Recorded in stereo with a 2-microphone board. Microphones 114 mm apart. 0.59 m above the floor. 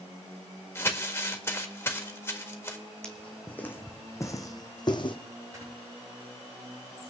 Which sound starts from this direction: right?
Snoring, at 5.5 s.